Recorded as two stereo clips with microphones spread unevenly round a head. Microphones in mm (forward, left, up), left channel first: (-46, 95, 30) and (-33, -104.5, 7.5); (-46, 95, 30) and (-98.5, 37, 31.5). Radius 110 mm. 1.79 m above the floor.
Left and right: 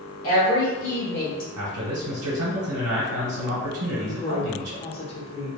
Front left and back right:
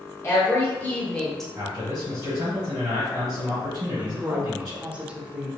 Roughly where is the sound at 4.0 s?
Behind left.